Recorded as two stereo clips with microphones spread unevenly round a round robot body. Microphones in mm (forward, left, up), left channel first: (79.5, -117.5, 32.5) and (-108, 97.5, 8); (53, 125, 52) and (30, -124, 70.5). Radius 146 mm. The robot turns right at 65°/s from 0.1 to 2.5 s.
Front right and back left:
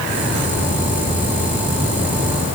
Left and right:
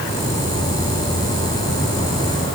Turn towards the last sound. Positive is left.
No sound to turn to.